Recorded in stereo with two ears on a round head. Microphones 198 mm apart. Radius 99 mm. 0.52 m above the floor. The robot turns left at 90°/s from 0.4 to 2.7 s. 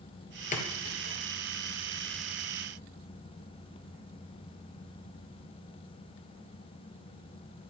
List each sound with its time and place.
0.5 s a splash: 35° left (ahead or behind), 3.5 m; by 1.1 s 90° left, 3.5 m